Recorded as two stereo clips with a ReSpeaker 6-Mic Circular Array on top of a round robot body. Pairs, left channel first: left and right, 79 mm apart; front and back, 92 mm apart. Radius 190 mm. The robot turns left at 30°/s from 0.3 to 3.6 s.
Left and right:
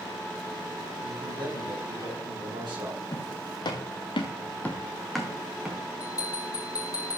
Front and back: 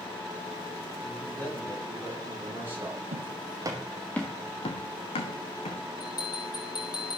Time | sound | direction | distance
1.0 | a man speaking | 60° right | 5.5 m
3.1 | footsteps | 155° left | 1.4 m
6.0 | a bell | 45° left | 2.5 m